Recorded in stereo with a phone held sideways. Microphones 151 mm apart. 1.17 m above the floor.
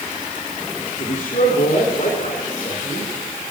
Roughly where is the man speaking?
Left.